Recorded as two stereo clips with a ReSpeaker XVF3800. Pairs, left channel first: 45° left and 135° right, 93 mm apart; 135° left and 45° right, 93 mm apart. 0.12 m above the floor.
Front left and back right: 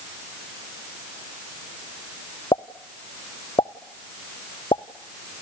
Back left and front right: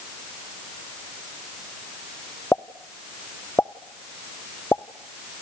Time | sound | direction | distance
2.5 | a pop | 70° left | 0.8 m